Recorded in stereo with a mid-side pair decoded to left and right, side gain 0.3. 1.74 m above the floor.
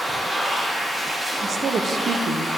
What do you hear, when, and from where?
0.0 s a machine running: 25° right, 3.5 m
1.4 s a woman speaking: 60° right, 1.1 m